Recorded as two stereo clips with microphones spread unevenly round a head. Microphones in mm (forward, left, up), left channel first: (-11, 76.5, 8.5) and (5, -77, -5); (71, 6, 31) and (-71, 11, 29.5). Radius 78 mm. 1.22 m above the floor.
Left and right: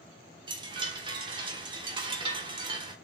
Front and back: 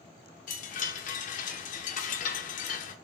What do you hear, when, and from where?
0.5 s a chime: 25° right, 0.9 m